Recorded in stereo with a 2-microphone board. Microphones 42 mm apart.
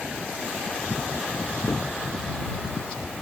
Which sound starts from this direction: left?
A cupboard door, at 1.7 s.